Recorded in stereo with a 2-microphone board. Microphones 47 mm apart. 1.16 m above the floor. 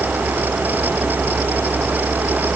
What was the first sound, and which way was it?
Only background noise.